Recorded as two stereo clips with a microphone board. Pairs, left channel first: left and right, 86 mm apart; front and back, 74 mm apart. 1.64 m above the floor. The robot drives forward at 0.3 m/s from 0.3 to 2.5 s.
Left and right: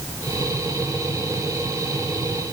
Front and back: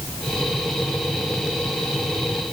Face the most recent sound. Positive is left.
No sound to turn to.